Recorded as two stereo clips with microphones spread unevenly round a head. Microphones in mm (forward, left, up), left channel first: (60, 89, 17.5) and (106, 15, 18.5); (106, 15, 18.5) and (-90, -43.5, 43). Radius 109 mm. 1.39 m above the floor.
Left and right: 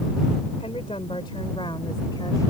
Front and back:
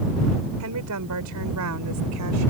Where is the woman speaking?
175° right; by 2.5 s 165° right.